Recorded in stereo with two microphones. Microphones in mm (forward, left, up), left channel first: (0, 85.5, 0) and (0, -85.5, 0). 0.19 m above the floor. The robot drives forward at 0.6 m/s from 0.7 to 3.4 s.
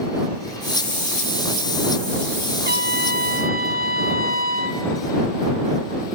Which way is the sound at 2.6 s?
75° right (ahead or behind).